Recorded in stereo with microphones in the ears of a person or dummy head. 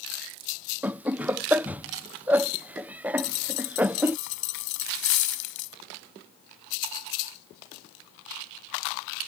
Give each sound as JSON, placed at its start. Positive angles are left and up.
{"t": 0.8, "sound": "laughter", "side_deg": -10}
{"t": 3.2, "sound": "a dropped coin", "side_deg": 75}